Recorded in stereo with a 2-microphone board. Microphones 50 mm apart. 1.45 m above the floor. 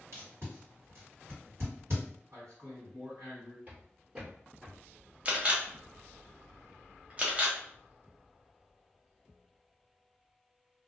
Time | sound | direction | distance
0.1 | tape being pulled | 65° right (ahead or behind) | 1.7 m
2.3 | a man speaking | 80° right | 1.7 m
3.7 | footsteps | 35° right (ahead or behind) | 1.9 m
5.2 | a camera shutter | 25° right (ahead or behind) | 0.7 m